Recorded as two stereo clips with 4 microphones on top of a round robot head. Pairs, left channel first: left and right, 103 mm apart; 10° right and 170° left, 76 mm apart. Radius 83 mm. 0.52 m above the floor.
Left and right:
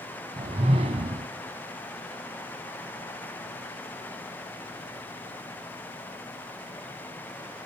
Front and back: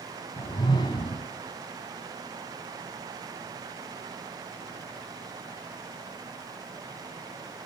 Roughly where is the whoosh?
Ahead right.